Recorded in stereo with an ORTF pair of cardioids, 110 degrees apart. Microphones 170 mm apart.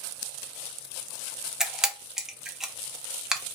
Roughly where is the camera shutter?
Ahead.